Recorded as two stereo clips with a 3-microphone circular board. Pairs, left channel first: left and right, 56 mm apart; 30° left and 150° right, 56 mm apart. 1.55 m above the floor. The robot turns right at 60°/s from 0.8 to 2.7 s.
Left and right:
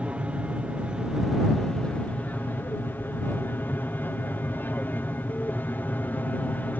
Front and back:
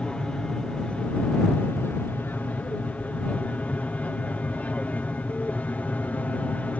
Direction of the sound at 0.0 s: 35° right.